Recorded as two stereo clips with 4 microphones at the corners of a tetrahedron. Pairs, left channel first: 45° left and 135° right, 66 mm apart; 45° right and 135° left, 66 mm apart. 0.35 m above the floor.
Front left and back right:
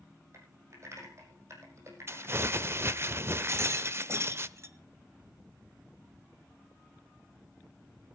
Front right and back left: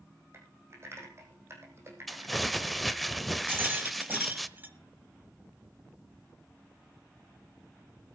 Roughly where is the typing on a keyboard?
Behind.